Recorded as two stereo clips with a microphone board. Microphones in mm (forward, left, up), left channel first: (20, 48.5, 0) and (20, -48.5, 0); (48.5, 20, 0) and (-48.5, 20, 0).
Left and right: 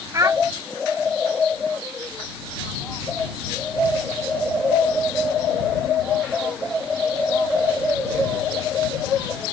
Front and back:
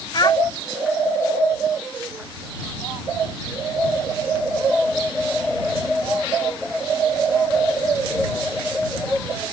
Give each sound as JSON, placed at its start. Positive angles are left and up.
{"t": 0.1, "sound": "a child speaking", "azimuth_deg": -35}